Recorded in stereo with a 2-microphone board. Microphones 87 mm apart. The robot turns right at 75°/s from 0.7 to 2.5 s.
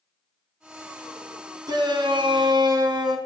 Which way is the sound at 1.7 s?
125° right.